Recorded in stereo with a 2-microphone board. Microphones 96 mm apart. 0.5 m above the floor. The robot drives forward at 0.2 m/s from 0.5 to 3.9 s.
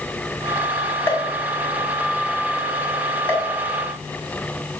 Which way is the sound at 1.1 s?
25° left (ahead or behind).